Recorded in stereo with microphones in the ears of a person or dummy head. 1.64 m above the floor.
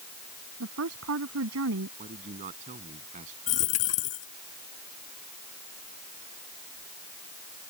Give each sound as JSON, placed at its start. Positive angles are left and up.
{"t": 0.6, "sound": "a woman speaking", "side_deg": -85}
{"t": 2.0, "sound": "a man speaking", "side_deg": -40}
{"t": 3.5, "sound": "a dropped coin", "side_deg": 40}